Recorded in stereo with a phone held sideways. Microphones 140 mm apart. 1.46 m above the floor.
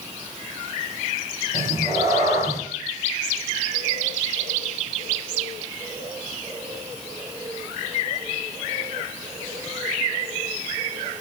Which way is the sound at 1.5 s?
20° right (ahead or behind).